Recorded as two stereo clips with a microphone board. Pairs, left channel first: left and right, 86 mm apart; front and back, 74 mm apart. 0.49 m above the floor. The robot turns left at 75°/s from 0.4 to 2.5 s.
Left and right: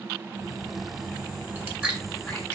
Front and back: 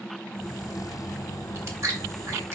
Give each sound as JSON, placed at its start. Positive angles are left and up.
{"t": 1.6, "sound": "chewing", "azimuth_deg": -135, "distance_m": 1.3}